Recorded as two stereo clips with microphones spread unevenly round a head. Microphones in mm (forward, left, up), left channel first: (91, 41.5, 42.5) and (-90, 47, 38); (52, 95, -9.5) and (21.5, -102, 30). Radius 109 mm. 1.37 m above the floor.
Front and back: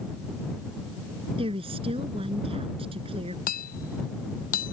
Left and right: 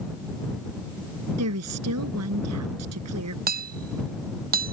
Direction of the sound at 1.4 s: 115° right.